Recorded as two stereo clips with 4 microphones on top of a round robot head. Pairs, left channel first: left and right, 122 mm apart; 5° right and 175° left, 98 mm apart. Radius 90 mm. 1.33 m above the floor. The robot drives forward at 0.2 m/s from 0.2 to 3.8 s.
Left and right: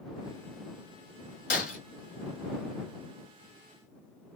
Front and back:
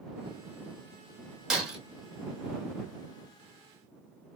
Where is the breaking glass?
90° left, 1.5 m.